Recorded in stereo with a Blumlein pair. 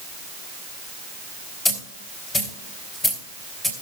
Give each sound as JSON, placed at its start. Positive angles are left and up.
{"t": 1.6, "sound": "a dropped coin", "azimuth_deg": 15, "distance_m": 3.0}